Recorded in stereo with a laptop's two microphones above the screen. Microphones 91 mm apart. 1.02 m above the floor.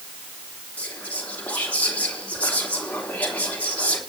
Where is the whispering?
20° left (ahead or behind), 3 m.